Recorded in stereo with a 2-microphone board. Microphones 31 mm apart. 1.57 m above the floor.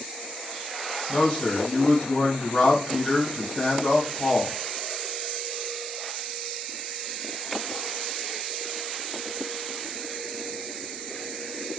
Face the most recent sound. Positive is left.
turn(degrees=40)  # may be behind; listen again after turning